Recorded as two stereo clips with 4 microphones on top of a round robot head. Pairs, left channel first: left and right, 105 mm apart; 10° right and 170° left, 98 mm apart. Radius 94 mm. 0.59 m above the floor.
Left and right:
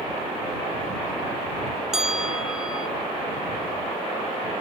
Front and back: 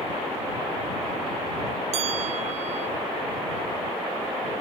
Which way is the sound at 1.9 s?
175° right.